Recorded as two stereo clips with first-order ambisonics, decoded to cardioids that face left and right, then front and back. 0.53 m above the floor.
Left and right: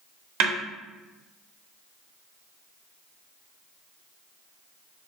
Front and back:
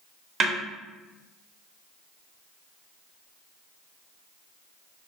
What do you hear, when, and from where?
0.4 s a snare drum: 115° right, 0.6 m